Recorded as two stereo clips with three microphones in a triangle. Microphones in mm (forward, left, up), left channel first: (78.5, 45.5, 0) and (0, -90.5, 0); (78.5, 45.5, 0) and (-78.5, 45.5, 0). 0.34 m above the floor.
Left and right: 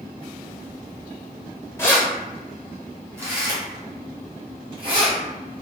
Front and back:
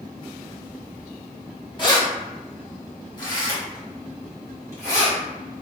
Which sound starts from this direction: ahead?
Keys jangling, at 1.8 s.